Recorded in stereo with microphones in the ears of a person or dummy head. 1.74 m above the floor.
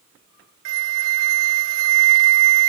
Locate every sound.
0.7 s a flute: 75° right (ahead or behind)